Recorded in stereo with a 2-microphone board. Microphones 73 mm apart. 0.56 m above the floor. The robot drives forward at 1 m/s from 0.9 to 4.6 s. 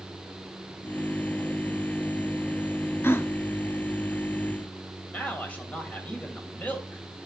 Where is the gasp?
35° left (ahead or behind), 0.8 m; by 3.3 s 30° left (ahead or behind), 0.8 m.